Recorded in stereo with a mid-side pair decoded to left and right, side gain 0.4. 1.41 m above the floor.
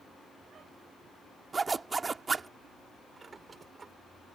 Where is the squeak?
40° right.